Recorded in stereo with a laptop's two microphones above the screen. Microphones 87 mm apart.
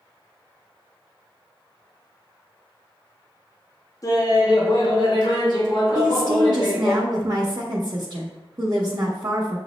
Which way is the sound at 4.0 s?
40° left (ahead or behind).